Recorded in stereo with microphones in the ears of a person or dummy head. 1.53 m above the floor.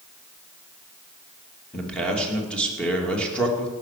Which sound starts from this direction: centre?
A man speaking, at 1.7 s.